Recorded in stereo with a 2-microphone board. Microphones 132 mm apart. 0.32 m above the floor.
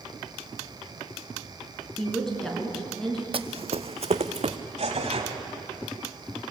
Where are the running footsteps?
50° right (ahead or behind), 0.6 m; by 4.6 s 60° right (ahead or behind), 1.4 m.